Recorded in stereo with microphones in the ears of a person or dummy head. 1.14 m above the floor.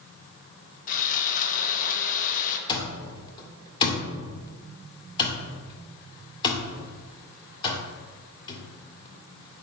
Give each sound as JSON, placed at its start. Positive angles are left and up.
{"t": 0.9, "sound": "sawing", "side_deg": 40, "distance_m": 1.2}
{"t": 2.7, "sound": "an alarm clock", "side_deg": 25, "distance_m": 1.8}